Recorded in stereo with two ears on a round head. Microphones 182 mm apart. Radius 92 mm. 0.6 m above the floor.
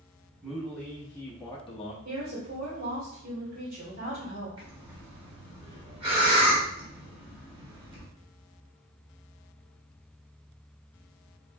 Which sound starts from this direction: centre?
A man speaking, at 0.4 s.